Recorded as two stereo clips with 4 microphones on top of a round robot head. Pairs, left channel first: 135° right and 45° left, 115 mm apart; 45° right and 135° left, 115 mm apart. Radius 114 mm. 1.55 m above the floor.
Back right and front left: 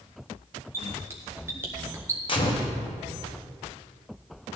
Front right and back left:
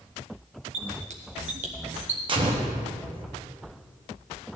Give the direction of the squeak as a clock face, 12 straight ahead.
8 o'clock.